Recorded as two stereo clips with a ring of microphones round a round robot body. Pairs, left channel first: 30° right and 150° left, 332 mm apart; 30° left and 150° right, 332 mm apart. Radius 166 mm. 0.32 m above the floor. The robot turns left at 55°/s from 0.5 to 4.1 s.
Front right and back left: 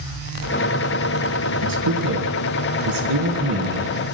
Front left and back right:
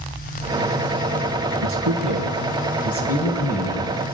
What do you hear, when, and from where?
1.6 s a man speaking: 165° left, 3 m; by 4.0 s 35° left, 3 m